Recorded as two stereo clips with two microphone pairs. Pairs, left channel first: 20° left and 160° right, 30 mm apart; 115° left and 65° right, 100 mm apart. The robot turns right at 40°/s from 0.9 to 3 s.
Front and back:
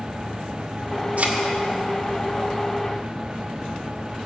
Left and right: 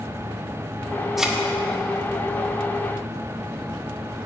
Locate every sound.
1.2 s a thud: 155° right, 1.8 m; by 1.4 s 145° right, 1.8 m